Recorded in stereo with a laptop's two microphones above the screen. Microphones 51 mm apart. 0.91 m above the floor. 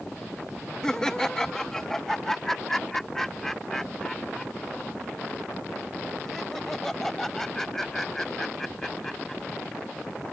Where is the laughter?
10° left (ahead or behind); by 9.4 s 5° left (ahead or behind).